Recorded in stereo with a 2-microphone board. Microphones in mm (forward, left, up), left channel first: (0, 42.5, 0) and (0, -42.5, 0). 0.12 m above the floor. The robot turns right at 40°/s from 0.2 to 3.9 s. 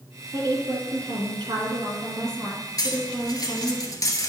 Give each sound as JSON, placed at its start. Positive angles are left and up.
{"t": 0.3, "sound": "a woman speaking", "azimuth_deg": -120, "distance_m": 2.5}
{"t": 2.8, "sound": "cutlery clinking", "side_deg": 50, "distance_m": 1.2}